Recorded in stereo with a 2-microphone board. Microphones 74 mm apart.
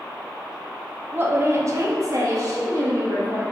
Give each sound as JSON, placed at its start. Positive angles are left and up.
{"t": 1.1, "sound": "a woman speaking", "side_deg": -30, "distance_m": 1.2}